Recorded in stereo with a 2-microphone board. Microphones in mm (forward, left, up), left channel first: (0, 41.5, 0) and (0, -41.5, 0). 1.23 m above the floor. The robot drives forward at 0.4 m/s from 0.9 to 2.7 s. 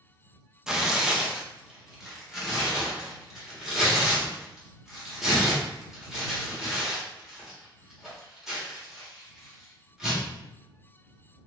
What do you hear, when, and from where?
0.7 s tearing paper: 5° right (ahead or behind), 0.5 m